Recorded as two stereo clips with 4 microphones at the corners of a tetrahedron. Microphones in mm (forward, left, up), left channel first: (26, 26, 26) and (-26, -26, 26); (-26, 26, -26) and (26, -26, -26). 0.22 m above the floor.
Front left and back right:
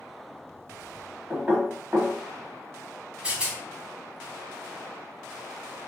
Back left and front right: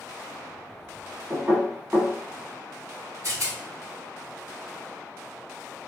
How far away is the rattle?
About 0.9 m.